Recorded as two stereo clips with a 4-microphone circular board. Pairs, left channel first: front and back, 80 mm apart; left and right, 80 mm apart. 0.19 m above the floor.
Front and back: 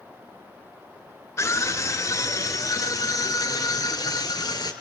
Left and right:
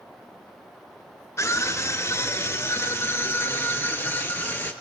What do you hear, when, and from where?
1.4 s a scream: 45° left, 3.5 m; by 4.7 s 25° left, 4.5 m